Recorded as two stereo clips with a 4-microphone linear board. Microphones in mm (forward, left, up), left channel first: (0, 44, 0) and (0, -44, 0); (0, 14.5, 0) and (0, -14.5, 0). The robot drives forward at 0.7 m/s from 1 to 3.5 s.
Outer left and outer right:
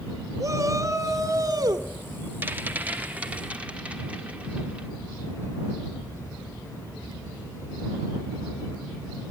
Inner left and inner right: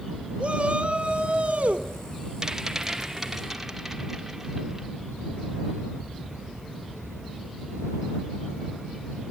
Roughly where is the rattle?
Right.